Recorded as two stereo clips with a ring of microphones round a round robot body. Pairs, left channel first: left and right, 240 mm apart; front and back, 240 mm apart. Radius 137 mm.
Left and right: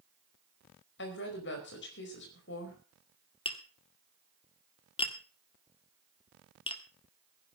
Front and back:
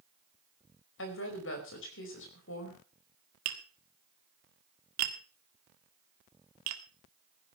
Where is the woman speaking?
45° left, 4.5 m.